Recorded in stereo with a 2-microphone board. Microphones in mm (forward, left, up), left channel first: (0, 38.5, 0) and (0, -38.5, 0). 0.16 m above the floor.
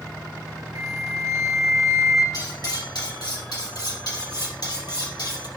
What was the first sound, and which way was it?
A flute, 40° right (ahead or behind).